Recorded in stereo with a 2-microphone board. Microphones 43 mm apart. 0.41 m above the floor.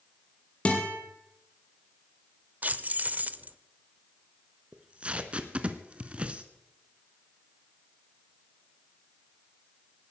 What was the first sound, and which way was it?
A guitar, 30° left (ahead or behind).